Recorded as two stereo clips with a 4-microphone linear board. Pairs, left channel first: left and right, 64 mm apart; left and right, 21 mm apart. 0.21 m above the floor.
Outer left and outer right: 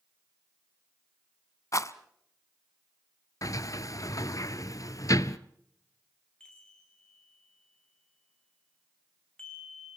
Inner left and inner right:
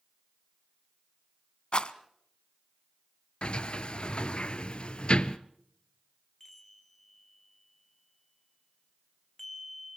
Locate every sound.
1.7 s a rattle: 50° left (ahead or behind), 0.9 m
3.4 s a sliding door: 55° left (ahead or behind), 0.8 m
6.4 s a chime: 10° left (ahead or behind), 3.5 m